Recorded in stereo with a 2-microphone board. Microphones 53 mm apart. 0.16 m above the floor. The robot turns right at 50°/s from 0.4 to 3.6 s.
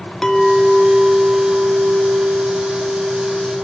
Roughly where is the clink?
Behind.